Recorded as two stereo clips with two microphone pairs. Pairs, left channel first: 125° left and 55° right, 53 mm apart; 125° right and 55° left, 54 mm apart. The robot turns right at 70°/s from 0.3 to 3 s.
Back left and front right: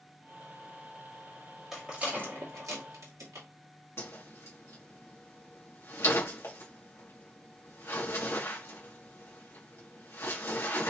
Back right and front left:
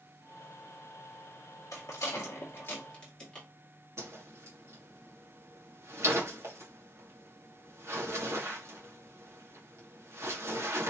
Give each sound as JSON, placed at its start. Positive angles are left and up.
{"t": 1.7, "sound": "a rattle", "azimuth_deg": -140, "distance_m": 2.0}
{"t": 4.0, "sound": "a whoosh", "azimuth_deg": 85, "distance_m": 1.8}